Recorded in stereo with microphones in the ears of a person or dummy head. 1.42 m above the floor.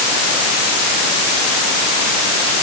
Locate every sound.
Only background noise.